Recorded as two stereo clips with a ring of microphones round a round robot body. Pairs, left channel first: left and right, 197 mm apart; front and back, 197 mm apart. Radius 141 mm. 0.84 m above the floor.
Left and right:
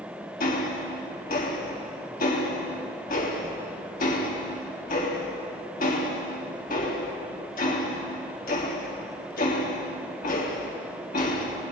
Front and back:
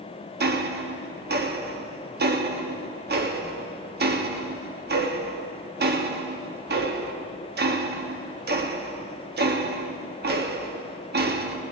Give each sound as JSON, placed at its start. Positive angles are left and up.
{"t": 0.4, "sound": "ticking", "azimuth_deg": 145, "distance_m": 1.3}